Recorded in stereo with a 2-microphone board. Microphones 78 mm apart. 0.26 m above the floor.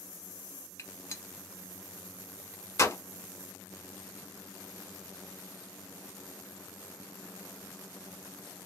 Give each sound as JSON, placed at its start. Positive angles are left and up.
{"t": 0.8, "sound": "a gunshot", "side_deg": 40, "distance_m": 1.0}